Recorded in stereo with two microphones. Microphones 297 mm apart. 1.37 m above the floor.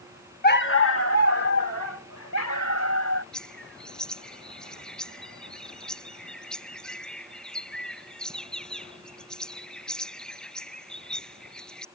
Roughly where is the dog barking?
Left.